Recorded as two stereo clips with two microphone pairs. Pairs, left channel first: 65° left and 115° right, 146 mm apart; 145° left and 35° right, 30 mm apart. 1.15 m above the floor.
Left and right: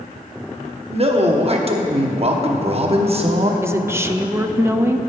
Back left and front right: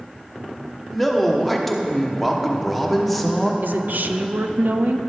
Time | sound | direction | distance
0.9 | a man speaking | 125° right | 0.9 m
3.6 | a woman speaking | 40° right | 0.5 m